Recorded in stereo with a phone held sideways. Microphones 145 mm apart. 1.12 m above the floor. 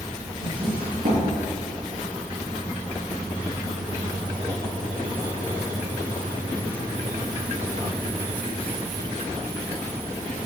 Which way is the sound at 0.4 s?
80° right.